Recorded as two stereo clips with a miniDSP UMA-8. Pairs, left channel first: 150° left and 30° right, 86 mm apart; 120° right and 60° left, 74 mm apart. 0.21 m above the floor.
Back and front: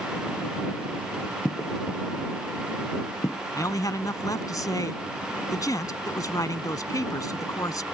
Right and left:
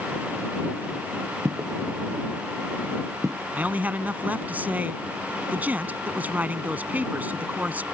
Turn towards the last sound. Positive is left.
turn(degrees=120)